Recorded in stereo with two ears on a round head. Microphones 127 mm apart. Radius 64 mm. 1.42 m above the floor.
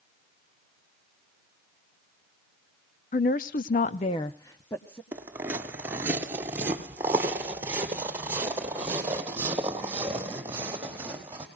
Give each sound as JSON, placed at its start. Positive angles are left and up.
{"t": 3.1, "sound": "a woman speaking", "side_deg": 55, "distance_m": 0.8}
{"t": 5.1, "sound": "footsteps", "side_deg": -15, "distance_m": 1.4}